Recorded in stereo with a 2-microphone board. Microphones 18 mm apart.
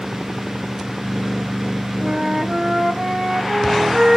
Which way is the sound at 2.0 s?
70° right (ahead or behind).